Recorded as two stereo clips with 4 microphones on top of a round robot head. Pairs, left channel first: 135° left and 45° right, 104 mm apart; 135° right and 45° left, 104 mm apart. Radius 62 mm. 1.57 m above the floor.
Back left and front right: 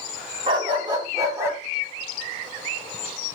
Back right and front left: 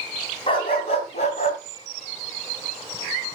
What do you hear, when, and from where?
0.5 s a dog barking: 90° right, 3.5 m; by 1.6 s 115° right, 3 m